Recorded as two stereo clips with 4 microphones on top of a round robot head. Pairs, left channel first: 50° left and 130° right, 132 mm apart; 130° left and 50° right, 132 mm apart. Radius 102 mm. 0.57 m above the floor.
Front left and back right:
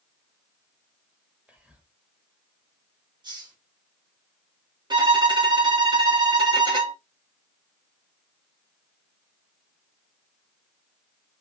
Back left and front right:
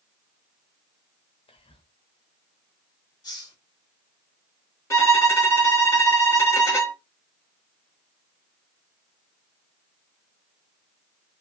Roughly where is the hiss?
Behind.